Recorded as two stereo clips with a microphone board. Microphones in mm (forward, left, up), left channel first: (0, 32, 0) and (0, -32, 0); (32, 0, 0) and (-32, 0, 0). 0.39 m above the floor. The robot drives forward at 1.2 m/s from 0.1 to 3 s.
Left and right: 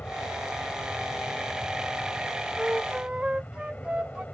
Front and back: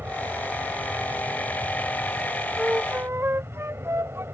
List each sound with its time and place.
0.0 s an aircraft: 145° left; by 4.3 s 150° left
2.6 s a flute: 120° right; by 4.2 s 155° right